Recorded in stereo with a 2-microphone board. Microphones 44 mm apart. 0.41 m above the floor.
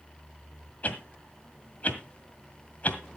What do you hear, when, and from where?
0.8 s a whoosh: 35° left (ahead or behind), 1.7 m